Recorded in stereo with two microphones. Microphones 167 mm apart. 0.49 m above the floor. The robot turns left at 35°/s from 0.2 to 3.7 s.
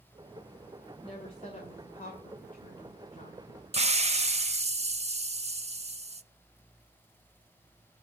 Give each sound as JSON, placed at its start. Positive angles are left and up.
{"t": 1.0, "sound": "a woman speaking", "azimuth_deg": 140, "distance_m": 2.0}
{"t": 3.7, "sound": "a hiss", "side_deg": -40, "distance_m": 0.5}